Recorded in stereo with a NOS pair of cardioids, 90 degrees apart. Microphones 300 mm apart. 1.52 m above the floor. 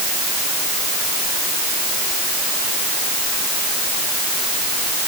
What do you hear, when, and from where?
Only background noise.